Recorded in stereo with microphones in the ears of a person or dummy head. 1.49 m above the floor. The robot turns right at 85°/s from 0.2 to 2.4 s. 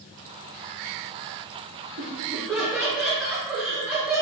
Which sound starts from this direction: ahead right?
Laughter, at 2.0 s.